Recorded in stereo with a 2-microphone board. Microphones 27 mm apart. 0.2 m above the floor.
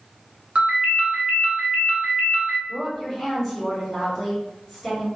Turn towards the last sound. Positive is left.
turn(degrees=10)  # may be behind; listen again after turning